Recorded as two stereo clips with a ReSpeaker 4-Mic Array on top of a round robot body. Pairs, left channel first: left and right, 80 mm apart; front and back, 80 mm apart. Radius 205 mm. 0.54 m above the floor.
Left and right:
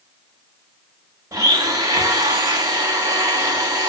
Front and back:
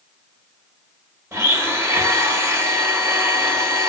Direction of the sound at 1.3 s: 130° right.